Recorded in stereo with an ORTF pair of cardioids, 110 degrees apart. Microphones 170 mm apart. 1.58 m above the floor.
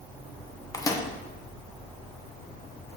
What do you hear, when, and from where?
0.7 s a microwave: 20° left, 0.9 m